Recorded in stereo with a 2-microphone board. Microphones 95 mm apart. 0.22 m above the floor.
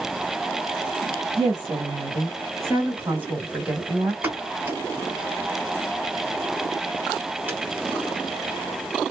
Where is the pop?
20° right (ahead or behind), 1.1 m.